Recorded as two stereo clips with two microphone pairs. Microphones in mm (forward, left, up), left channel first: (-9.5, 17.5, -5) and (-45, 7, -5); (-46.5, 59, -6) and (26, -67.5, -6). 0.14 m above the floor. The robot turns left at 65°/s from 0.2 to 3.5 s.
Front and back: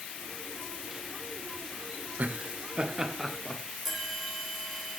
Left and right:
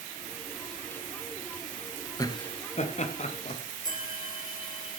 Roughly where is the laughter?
Behind.